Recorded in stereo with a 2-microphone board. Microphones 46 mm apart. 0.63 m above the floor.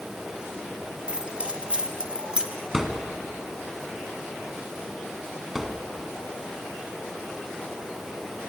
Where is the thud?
10° right (ahead or behind), 2 m.